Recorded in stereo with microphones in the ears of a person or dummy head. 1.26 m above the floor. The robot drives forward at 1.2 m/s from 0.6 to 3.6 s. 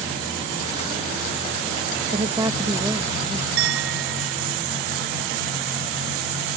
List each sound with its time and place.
2.1 s a woman speaking: 25° right (ahead or behind); by 3.5 s 5° right (ahead or behind)
3.6 s a clink: 65° right (ahead or behind)